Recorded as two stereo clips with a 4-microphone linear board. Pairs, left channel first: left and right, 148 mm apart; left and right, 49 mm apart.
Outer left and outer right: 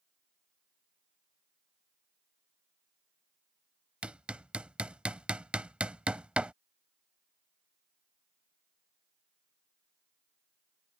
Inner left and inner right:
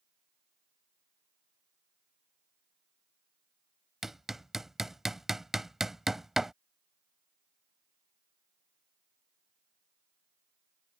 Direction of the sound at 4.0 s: 10° right (ahead or behind).